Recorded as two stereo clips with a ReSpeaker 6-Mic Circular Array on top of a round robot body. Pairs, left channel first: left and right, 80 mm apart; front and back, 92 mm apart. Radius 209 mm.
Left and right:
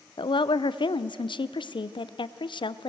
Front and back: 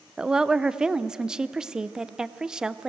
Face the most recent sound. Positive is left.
turn(degrees=95)